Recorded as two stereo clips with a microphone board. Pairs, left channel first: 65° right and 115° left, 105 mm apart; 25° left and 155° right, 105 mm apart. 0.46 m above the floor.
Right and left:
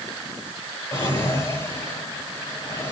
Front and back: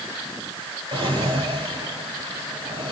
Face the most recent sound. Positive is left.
turn(degrees=-130)